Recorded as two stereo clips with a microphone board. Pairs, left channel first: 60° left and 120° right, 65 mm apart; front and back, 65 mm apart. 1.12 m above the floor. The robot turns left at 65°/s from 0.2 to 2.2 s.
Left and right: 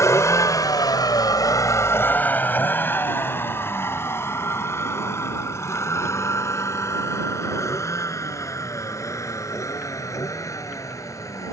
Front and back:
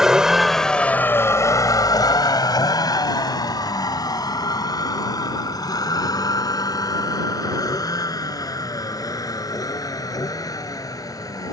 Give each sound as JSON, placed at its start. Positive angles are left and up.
{"t": 0.0, "sound": "a vehicle", "azimuth_deg": 95}